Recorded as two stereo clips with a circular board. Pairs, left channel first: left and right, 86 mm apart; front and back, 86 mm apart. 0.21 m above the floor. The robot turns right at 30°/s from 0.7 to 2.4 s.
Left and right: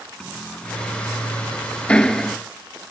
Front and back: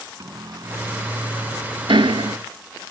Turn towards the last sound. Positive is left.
turn(degrees=180)